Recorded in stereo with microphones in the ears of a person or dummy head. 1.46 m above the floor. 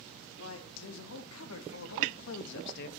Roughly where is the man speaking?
Left.